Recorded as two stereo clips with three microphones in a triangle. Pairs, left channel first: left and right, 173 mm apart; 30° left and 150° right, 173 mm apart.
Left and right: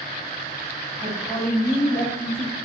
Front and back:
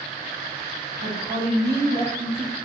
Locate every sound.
1.0 s a woman speaking: 165° left, 0.6 m